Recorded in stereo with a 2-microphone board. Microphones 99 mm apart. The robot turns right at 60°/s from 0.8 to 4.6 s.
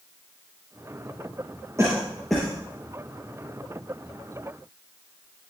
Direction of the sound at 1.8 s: 30° right (ahead or behind).